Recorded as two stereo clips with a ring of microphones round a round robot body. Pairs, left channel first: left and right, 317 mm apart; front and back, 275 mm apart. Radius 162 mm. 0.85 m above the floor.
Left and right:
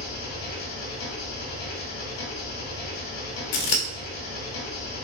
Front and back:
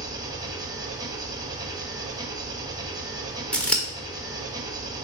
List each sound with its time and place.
0.0 s an engine running: 105° left, 1.3 m
3.5 s scissors: 85° left, 1.1 m